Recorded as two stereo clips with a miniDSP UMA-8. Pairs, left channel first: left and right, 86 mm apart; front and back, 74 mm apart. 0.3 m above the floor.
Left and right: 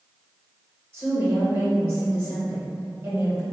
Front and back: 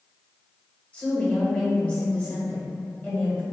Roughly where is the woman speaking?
Ahead right.